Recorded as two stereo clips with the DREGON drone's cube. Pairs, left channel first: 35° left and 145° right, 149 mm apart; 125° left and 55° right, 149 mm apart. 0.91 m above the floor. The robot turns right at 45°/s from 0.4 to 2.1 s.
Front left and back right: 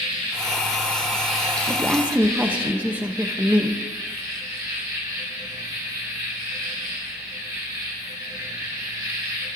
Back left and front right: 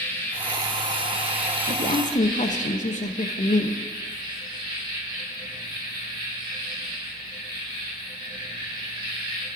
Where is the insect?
170° right, 1.2 m; by 9.6 s 95° right, 1.2 m.